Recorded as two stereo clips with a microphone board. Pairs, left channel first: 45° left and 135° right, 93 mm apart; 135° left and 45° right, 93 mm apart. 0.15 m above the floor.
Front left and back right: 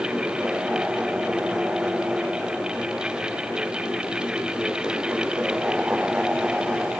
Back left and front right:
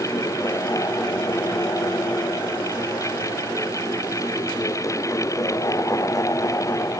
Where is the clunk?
I don't hear a clunk.